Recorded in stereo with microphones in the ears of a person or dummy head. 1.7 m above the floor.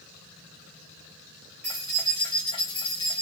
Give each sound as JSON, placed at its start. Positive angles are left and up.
{"t": 1.6, "sound": "keys jangling", "side_deg": 10, "distance_m": 0.6}